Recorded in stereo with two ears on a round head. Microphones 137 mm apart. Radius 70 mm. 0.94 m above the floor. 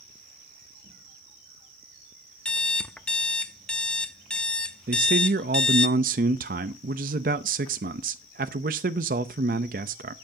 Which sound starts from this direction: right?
A man speaking, at 4.9 s.